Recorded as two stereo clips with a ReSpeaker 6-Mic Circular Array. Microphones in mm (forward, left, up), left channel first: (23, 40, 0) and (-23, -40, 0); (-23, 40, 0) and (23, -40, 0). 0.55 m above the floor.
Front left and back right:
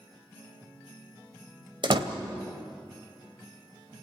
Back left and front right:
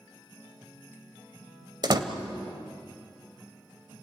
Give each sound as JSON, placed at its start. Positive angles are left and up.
{"t": 1.8, "sound": "a door slam", "azimuth_deg": -95, "distance_m": 2.0}